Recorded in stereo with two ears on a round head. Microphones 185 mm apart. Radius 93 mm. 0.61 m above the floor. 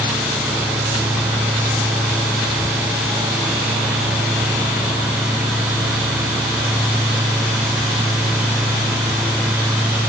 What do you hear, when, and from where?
Only background noise.